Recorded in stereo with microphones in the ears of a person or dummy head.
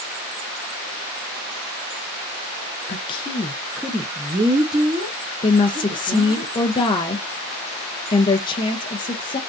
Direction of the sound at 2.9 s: 35° left (ahead or behind).